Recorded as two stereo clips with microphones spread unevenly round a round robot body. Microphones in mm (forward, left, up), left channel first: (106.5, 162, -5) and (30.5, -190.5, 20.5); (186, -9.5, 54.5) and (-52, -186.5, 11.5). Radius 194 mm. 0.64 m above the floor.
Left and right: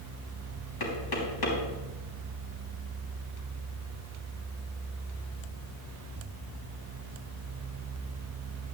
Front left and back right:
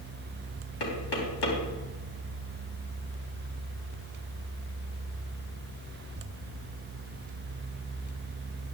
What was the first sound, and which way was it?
Knocking, 45° left.